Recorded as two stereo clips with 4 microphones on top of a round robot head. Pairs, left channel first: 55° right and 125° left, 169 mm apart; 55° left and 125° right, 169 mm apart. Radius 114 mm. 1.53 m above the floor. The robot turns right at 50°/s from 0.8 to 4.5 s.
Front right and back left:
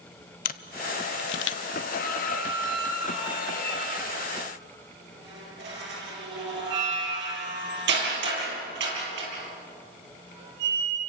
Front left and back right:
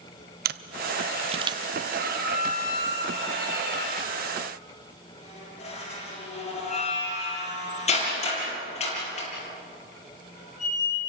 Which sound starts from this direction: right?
A camera shutter, at 0.5 s.